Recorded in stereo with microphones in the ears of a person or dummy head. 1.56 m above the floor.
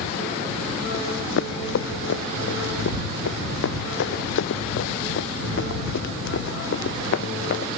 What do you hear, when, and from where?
0.9 s running footsteps: 65° left (ahead or behind)